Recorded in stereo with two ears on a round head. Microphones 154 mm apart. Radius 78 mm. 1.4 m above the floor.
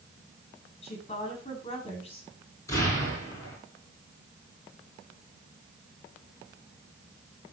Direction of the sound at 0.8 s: 35° left (ahead or behind).